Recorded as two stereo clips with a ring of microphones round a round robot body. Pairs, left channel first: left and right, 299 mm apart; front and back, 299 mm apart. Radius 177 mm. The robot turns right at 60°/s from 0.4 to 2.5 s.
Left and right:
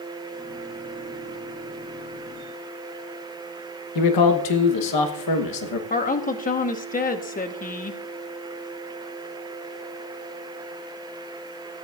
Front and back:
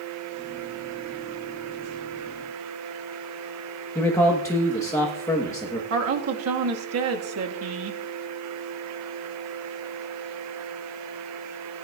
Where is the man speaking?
80° left, 1.1 m.